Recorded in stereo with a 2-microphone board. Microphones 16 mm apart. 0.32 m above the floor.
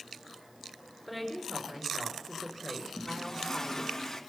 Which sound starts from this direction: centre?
A woman speaking, at 1.1 s.